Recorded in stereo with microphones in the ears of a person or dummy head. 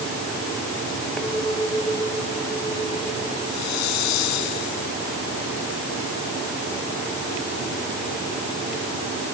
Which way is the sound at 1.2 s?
5° left (ahead or behind).